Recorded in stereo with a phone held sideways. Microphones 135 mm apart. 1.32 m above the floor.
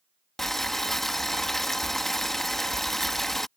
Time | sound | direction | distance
0.4 | boiling | centre (ahead or behind) | ?